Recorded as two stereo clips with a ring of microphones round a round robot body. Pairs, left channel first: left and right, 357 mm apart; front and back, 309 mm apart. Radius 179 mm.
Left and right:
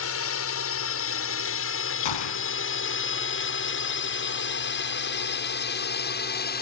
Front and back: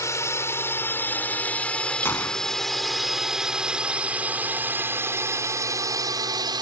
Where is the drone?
75° left; by 6.6 s 120° left.